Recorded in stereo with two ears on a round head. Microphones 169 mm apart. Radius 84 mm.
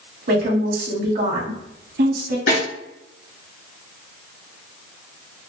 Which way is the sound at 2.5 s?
70° left (ahead or behind).